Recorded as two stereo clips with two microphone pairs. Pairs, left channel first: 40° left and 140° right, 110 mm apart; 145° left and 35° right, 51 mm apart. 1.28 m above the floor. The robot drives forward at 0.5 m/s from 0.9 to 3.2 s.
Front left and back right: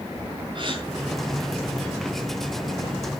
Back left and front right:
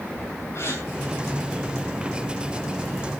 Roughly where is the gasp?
Behind.